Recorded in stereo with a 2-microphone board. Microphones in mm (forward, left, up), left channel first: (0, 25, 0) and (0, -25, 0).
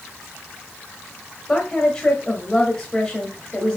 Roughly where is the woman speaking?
Centre.